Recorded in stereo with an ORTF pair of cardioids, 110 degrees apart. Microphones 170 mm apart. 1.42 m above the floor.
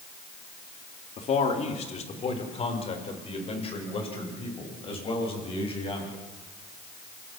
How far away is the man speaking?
About 3 m.